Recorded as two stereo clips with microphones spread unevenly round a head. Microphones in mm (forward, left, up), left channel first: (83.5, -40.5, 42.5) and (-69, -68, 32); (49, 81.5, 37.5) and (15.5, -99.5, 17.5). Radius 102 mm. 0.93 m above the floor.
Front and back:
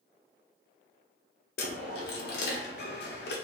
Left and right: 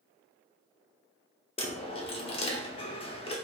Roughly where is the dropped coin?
Ahead left.